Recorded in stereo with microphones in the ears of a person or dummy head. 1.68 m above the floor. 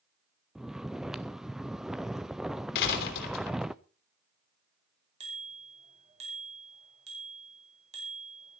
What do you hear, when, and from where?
0.6 s snoring: centre (ahead or behind), 0.5 m
2.8 s a door slam: 60° left (ahead or behind), 3 m
5.2 s a bicycle bell: 30° right (ahead or behind), 4.5 m